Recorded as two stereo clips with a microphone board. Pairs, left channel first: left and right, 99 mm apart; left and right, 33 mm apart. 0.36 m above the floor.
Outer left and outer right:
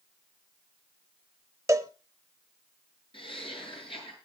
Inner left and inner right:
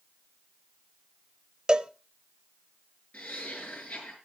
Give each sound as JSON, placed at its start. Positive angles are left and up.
{"t": 1.7, "sound": "a cowbell", "side_deg": -30, "distance_m": 0.6}
{"t": 3.1, "sound": "laughter", "side_deg": 60, "distance_m": 7.0}